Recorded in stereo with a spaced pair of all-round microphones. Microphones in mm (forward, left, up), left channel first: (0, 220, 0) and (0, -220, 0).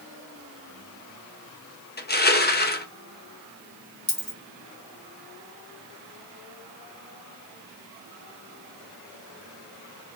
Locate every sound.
2.0 s crushing: 25° left (ahead or behind), 0.6 m
4.1 s a dropped coin: 45° left (ahead or behind), 2 m